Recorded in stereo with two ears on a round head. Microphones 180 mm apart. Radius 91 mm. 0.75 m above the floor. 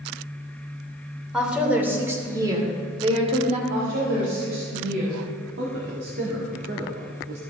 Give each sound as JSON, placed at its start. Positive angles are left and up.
{"t": 1.3, "sound": "a woman speaking", "side_deg": -5, "distance_m": 2.5}
{"t": 3.7, "sound": "a woman speaking", "side_deg": -65, "distance_m": 4.0}
{"t": 5.6, "sound": "a man speaking", "side_deg": -60, "distance_m": 1.9}